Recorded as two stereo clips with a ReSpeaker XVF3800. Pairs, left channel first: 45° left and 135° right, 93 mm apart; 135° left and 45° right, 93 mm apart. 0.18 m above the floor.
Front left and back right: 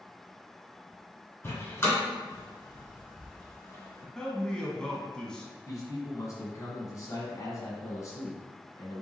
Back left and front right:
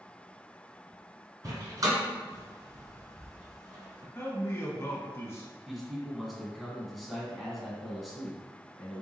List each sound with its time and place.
1.4 s a door slam: 15° right, 1.8 m
4.2 s a man speaking: 120° left, 1.1 m
5.7 s a man speaking: 45° left, 1.6 m